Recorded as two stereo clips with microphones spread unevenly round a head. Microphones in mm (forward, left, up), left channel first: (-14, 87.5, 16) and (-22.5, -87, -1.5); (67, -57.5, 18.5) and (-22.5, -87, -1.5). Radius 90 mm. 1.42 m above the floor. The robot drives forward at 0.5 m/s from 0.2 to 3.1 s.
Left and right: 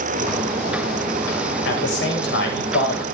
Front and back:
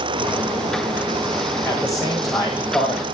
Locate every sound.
1.6 s a man speaking: 105° left, 9 m; by 3.0 s 110° left, 9 m